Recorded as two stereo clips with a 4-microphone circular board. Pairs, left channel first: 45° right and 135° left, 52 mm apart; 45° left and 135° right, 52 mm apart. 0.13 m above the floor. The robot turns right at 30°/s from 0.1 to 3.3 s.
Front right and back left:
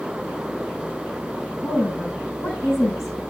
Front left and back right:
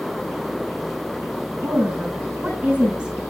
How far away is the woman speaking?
About 7.5 m.